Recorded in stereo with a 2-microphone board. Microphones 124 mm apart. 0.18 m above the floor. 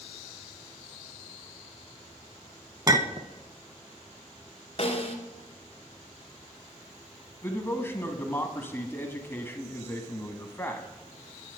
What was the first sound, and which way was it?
A clink, 30° right (ahead or behind).